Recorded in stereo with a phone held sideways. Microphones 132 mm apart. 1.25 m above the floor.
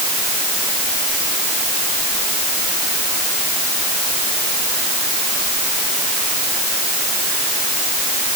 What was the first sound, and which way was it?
Only background noise.